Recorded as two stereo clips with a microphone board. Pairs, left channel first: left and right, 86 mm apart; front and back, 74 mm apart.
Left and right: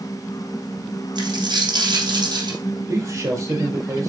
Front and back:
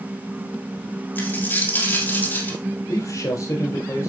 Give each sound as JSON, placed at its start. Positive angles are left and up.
{"t": 1.1, "sound": "a dropped coin", "azimuth_deg": -60, "distance_m": 3.5}
{"t": 2.9, "sound": "a man speaking", "azimuth_deg": -35, "distance_m": 5.5}